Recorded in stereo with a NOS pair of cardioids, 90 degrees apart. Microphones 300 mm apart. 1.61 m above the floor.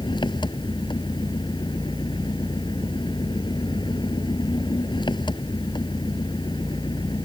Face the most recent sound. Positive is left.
turn(degrees=15)